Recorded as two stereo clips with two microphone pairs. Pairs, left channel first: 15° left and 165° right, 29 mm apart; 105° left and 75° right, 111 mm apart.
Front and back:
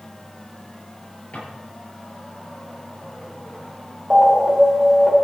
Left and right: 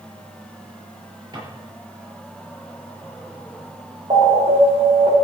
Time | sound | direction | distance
1.3 | a drawer | 25° right | 8 m
4.1 | an alarm | 100° right | 4.5 m